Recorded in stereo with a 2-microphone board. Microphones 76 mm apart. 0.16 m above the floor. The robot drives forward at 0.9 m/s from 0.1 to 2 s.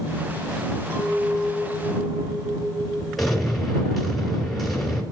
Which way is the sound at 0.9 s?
35° right (ahead or behind).